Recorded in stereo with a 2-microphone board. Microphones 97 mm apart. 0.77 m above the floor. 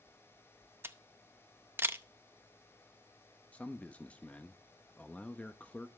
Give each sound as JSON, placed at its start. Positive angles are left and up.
{"t": 0.8, "sound": "a camera shutter", "side_deg": -25, "distance_m": 0.6}
{"t": 3.5, "sound": "a man speaking", "side_deg": 15, "distance_m": 0.7}